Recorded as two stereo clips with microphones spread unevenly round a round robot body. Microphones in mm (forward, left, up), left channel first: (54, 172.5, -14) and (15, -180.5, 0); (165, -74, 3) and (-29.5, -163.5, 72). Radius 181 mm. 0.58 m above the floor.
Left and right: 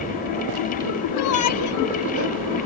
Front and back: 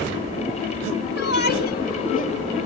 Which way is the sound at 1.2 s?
50° left.